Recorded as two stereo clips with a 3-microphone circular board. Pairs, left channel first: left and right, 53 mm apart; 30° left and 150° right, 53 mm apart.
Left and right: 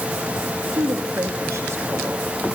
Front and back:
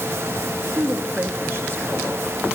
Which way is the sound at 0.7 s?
95° right.